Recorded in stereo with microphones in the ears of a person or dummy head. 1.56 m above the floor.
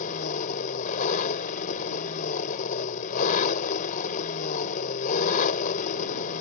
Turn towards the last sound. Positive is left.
turn(degrees=45)  # may be behind; listen again after turning